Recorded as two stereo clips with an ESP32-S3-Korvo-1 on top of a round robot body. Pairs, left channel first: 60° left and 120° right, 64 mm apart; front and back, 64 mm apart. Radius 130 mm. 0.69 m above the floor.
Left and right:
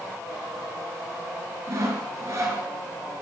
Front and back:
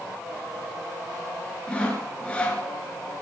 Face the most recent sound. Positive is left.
turn(degrees=-70)